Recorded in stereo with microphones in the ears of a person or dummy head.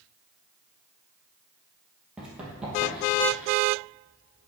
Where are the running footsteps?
5° right (ahead or behind), 2 m; by 3.5 s 10° right (ahead or behind), 3 m.